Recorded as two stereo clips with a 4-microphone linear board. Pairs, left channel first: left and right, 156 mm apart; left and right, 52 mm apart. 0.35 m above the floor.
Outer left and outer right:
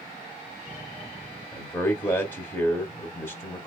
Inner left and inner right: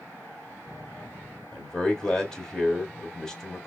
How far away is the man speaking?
About 0.9 m.